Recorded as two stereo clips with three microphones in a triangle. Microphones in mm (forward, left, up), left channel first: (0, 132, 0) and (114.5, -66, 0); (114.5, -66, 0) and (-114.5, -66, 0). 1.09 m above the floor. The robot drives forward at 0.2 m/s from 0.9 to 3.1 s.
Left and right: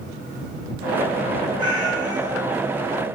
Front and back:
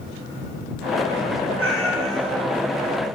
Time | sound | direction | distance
1.6 | a cat meowing | 170° right | 7.5 m